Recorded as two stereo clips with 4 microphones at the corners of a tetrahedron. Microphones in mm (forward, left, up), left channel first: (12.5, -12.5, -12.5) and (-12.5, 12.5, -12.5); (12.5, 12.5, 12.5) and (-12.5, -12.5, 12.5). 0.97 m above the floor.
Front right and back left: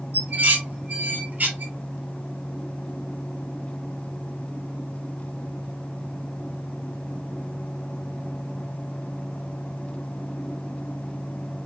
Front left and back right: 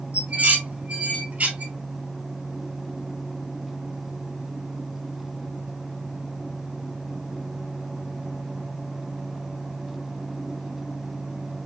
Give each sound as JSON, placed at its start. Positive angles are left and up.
{"t": 0.1, "sound": "dishes clattering", "azimuth_deg": 175, "distance_m": 3.0}